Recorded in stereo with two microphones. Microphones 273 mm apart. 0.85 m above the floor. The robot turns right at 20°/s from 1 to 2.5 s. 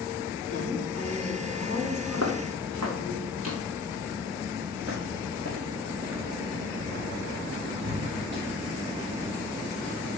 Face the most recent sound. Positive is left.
turn(degrees=-40)  # may be behind; listen again after turning